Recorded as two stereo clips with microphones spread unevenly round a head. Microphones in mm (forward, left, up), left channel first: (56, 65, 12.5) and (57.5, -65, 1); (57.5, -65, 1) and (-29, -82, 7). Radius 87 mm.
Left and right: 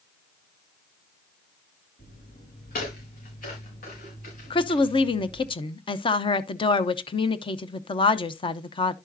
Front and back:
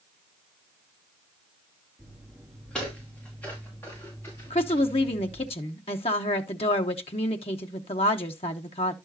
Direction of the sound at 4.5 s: 45° left.